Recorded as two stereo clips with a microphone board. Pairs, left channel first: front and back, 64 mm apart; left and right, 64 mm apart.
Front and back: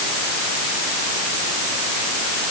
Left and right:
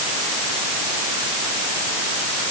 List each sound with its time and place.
Only background noise.